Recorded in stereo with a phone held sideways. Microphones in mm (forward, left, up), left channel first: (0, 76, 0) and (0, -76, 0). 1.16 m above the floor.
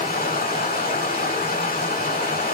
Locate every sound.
0.0 s running water: 70° left (ahead or behind), 2.0 m